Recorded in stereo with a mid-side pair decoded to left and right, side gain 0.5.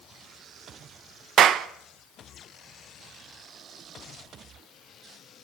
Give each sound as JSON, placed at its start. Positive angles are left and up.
{"t": 1.4, "sound": "a clap", "azimuth_deg": -60, "distance_m": 1.5}